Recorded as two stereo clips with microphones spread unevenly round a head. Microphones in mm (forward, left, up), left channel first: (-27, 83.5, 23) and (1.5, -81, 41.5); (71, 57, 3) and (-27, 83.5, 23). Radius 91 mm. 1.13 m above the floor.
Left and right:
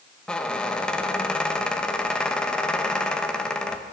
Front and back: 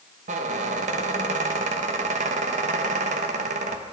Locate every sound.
0.3 s a squeak: 175° right, 0.8 m